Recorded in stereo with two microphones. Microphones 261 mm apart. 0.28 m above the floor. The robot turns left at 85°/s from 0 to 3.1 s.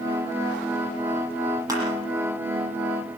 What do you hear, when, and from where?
1.7 s crushing: 15° right (ahead or behind), 9 m; by 1.8 s 5° right (ahead or behind), 9 m